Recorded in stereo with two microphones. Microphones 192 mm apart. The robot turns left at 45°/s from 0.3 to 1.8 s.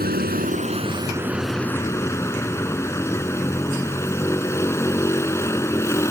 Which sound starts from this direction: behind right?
A vehicle, at 0.0 s.